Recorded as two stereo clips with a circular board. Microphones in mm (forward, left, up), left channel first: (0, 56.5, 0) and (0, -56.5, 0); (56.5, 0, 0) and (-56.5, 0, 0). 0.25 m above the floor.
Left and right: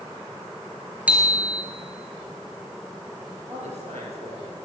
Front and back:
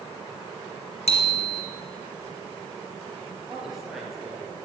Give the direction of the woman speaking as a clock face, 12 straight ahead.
3 o'clock.